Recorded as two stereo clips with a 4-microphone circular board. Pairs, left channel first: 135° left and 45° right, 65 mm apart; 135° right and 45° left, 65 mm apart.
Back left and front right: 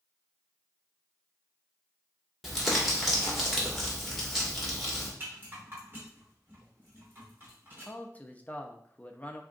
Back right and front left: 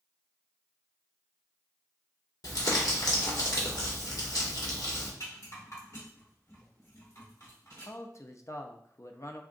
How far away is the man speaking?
About 0.6 m.